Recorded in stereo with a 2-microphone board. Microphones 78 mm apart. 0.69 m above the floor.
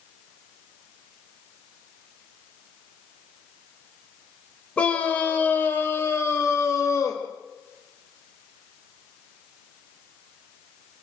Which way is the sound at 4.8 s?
15° left (ahead or behind).